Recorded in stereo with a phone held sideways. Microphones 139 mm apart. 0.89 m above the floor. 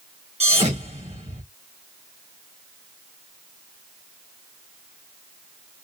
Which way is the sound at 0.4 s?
50° right (ahead or behind).